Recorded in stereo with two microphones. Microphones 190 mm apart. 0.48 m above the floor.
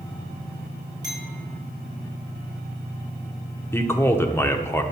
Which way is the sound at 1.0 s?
20° right (ahead or behind).